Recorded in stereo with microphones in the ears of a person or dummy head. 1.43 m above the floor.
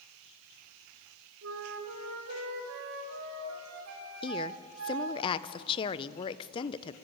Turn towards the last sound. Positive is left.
turn(degrees=25)  # may be behind; listen again after turning